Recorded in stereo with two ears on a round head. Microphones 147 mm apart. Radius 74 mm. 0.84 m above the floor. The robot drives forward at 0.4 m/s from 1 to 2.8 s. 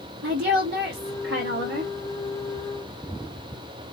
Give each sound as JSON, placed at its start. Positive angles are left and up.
{"t": 0.2, "sound": "a woman speaking", "side_deg": -75, "distance_m": 2.5}